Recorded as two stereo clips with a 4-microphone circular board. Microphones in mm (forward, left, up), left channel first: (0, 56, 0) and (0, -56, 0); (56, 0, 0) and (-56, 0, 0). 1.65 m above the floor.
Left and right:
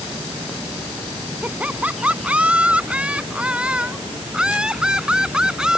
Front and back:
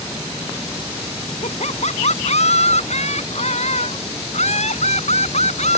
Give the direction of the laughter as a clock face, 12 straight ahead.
12 o'clock.